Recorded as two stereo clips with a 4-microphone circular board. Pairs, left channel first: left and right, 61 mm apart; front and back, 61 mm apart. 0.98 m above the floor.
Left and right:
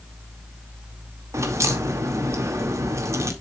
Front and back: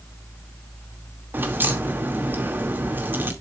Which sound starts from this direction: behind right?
A crack, at 1.3 s.